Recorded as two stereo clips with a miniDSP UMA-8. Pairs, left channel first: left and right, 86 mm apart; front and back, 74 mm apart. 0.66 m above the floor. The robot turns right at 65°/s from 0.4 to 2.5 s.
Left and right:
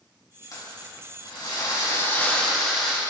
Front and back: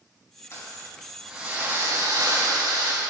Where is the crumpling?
50° left, 3 m; by 3.0 s straight behind, 3 m.